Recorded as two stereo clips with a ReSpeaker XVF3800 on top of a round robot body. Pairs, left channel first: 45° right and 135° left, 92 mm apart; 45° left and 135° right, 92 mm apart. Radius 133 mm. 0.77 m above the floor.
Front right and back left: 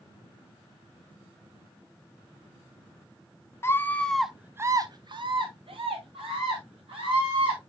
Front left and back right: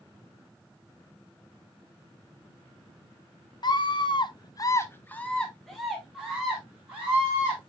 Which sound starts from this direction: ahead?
A scream, at 3.6 s.